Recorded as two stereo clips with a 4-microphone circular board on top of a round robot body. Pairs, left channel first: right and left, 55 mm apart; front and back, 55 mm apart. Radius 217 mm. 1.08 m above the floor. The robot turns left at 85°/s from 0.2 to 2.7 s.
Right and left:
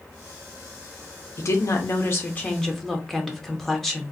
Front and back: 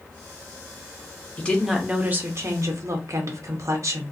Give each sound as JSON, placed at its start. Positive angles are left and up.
{"t": 1.4, "sound": "a woman speaking", "azimuth_deg": -60, "distance_m": 1.3}